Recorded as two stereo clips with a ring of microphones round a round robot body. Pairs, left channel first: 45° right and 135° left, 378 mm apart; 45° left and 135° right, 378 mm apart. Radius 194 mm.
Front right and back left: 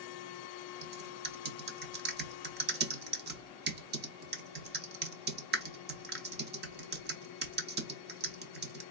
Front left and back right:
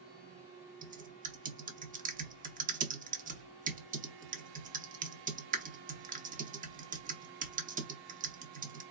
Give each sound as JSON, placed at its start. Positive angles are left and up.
{"t": 0.8, "sound": "typing on a keyboard", "azimuth_deg": 175, "distance_m": 0.8}